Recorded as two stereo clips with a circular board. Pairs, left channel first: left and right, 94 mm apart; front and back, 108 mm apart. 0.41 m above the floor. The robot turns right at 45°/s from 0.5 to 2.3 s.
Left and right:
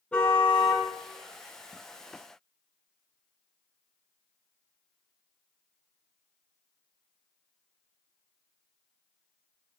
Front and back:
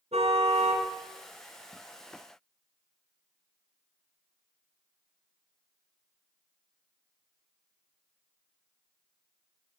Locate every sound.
0.1 s a car horn: 170° left, 3 m; by 0.9 s 175° right, 3 m